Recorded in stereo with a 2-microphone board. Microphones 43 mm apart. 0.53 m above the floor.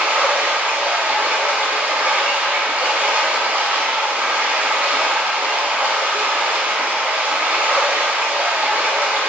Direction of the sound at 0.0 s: 45° right (ahead or behind).